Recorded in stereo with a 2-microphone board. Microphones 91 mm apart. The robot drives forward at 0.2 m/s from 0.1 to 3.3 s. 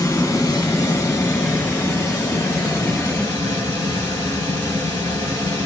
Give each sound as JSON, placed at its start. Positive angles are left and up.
{"t": 0.0, "sound": "running water", "side_deg": 35, "distance_m": 1.7}